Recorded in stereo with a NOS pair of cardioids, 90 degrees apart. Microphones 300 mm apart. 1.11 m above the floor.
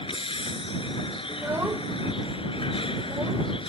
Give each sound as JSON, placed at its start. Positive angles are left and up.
{"t": 0.0, "sound": "a vehicle", "azimuth_deg": 15}
{"t": 1.3, "sound": "a child speaking", "azimuth_deg": -5}